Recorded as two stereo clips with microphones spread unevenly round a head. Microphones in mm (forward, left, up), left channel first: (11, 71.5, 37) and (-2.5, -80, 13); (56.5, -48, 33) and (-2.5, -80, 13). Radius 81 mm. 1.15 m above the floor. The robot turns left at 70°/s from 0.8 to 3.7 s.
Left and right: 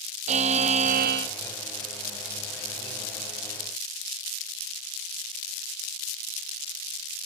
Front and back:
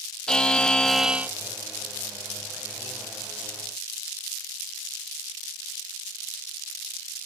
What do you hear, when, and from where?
0.3 s a buzzer: 45° right, 1.0 m; by 1.3 s 85° right, 1.0 m